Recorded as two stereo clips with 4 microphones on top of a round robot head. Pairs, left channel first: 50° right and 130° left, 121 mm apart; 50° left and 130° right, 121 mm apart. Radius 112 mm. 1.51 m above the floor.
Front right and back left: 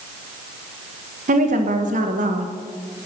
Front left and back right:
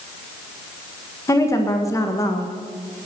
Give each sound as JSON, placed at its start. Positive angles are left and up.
{"t": 1.3, "sound": "a woman speaking", "azimuth_deg": 115, "distance_m": 1.6}